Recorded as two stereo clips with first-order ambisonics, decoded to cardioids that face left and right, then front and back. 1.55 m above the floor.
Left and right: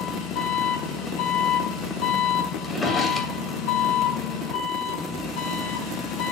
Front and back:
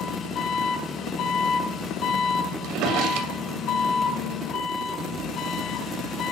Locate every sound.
0.0 s an engine running: 55° left, 6 m
2.6 s a drawer: 165° left, 2 m